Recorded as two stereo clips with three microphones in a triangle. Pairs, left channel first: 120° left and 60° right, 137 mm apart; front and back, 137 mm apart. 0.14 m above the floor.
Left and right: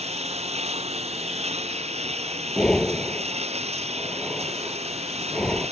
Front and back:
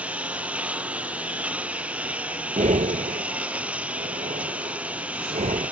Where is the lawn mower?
100° right.